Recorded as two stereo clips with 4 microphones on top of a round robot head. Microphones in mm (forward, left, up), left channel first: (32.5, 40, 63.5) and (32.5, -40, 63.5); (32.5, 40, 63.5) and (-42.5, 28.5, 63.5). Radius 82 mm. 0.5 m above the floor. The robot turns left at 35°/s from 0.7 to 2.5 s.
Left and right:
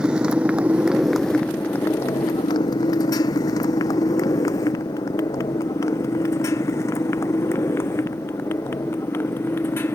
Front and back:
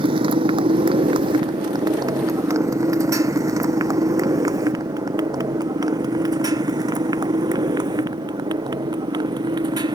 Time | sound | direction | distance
0.0 | a motorcycle | 170° right | ?